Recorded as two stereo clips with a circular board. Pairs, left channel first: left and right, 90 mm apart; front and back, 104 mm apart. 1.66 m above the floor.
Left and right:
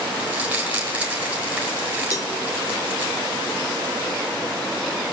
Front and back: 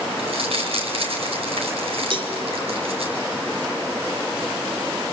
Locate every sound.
0.2 s crumpling: 170° right, 5 m
2.1 s a cowbell: 140° left, 1.3 m